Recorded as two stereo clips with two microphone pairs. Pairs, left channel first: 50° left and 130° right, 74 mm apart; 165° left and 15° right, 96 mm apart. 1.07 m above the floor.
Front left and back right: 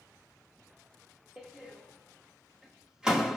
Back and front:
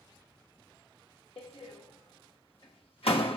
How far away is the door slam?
About 1.0 m.